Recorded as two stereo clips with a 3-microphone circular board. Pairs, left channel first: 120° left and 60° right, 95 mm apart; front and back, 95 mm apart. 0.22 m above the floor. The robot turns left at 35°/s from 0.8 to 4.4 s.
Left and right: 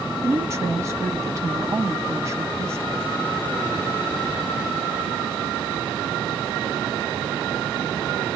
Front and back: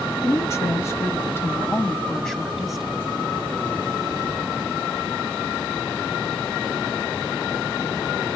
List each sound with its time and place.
0.2 s a woman speaking: 30° right, 1.2 m; by 3.1 s 110° right, 1.2 m